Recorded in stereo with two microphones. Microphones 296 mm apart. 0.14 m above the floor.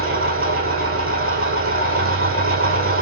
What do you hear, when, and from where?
0.0 s an engine running: 50° right (ahead or behind), 1.6 m